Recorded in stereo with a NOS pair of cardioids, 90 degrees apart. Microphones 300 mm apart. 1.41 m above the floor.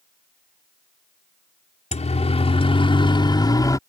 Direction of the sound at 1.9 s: 20° left.